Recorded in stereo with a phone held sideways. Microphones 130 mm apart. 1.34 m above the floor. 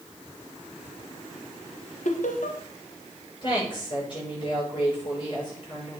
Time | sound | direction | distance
2.0 | laughter | 75° left (ahead or behind) | 1.5 m
3.4 | a woman speaking | 35° left (ahead or behind) | 6.5 m